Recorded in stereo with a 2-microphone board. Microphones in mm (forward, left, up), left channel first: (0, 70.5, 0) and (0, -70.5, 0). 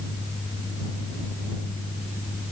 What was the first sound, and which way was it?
Only background noise.